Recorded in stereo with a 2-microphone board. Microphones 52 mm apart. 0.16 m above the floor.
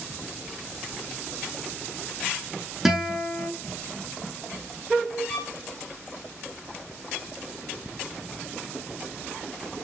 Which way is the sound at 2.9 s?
5° right (ahead or behind).